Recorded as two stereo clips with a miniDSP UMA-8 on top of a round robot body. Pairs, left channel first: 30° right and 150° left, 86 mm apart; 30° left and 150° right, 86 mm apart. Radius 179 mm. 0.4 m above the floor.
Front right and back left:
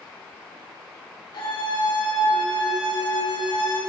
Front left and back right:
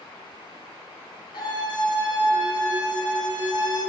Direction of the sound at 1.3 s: Straight ahead.